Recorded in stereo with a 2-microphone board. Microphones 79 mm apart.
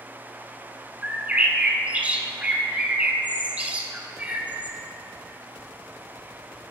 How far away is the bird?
About 0.5 m.